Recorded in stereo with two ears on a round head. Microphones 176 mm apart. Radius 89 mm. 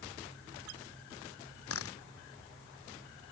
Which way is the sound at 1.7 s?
90° left.